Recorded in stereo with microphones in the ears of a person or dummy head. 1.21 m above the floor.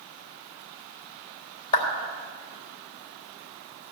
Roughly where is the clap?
Left.